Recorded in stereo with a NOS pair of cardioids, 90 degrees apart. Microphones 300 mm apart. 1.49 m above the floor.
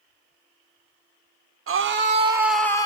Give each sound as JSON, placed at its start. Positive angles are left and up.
{"t": 1.7, "sound": "a scream", "azimuth_deg": -45, "distance_m": 1.0}